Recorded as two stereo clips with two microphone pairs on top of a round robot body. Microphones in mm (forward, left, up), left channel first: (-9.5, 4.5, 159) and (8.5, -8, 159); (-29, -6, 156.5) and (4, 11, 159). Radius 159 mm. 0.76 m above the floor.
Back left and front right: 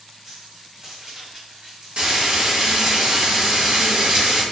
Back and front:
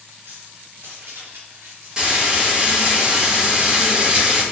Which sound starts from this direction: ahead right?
Frying, at 2.0 s.